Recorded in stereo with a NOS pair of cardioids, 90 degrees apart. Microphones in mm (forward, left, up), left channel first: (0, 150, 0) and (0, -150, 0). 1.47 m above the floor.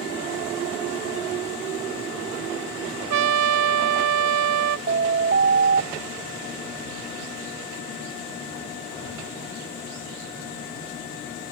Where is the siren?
40° right.